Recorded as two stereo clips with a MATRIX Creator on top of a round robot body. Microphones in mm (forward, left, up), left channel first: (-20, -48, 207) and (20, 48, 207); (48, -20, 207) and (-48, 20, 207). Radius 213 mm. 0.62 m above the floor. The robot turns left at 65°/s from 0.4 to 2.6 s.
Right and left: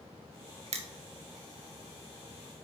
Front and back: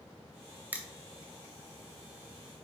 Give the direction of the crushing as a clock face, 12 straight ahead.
9 o'clock.